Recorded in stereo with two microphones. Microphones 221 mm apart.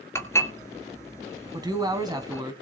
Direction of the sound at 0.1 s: 10° left (ahead or behind).